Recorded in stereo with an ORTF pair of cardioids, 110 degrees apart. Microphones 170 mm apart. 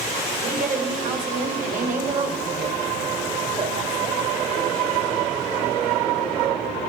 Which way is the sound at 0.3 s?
50° right.